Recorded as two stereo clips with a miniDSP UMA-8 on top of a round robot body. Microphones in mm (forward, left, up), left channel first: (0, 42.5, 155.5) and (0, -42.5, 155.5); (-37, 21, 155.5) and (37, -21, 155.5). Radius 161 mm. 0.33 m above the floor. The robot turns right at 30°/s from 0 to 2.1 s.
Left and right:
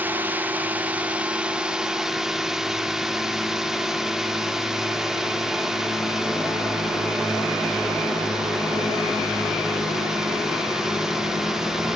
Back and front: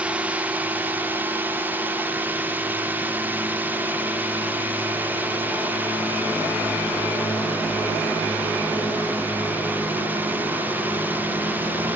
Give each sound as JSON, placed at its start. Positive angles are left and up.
{"t": 0.0, "sound": "a drone", "azimuth_deg": -80}